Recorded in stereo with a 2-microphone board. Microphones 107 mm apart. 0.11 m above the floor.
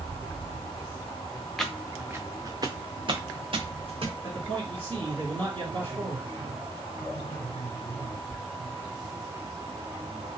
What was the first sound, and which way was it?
Footsteps, 5° left (ahead or behind).